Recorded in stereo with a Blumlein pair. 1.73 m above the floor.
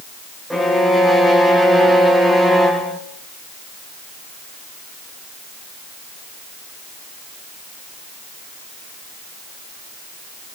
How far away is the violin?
About 1.4 m.